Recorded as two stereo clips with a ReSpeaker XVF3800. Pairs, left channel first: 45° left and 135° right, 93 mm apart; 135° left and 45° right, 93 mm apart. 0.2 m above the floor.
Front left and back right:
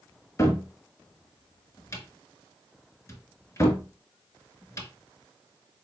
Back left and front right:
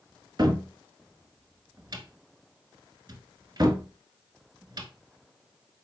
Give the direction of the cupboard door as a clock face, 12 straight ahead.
12 o'clock.